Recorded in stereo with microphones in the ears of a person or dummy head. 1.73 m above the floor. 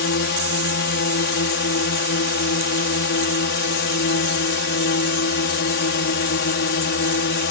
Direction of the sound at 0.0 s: 55° left (ahead or behind).